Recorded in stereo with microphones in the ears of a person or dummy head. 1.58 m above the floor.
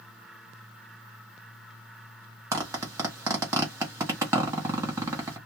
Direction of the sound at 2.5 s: 25° right (ahead or behind).